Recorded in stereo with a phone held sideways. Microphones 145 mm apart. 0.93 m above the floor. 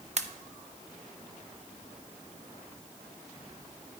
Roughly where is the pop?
Right.